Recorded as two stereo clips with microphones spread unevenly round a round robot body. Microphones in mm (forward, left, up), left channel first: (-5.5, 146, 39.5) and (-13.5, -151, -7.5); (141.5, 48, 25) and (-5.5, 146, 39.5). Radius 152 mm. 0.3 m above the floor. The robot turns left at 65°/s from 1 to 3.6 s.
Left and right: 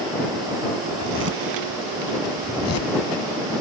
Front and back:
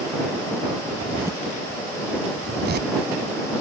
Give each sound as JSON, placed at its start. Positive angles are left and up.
{"t": 0.9, "sound": "a zipper", "azimuth_deg": -115}